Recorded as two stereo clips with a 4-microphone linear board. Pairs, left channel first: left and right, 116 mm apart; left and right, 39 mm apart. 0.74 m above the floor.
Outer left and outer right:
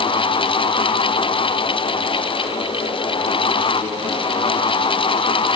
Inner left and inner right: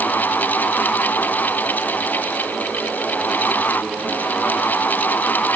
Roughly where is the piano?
I don't hear a piano.